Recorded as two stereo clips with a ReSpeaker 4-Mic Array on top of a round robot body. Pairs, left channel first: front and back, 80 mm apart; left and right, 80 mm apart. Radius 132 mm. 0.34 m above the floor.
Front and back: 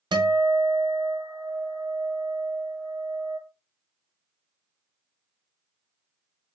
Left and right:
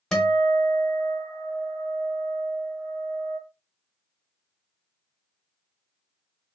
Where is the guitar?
170° left, 0.9 m.